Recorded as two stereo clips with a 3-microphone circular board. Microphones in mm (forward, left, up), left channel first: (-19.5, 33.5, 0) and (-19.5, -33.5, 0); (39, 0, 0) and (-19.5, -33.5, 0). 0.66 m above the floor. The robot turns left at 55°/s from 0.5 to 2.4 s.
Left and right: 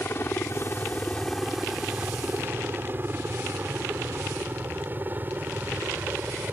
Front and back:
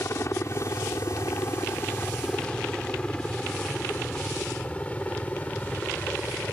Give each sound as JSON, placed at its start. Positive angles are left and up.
{"t": 0.0, "sound": "a helicopter", "azimuth_deg": 50}